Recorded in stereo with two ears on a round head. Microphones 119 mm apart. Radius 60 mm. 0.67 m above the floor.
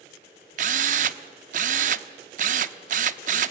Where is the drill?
65° right (ahead or behind), 0.6 m.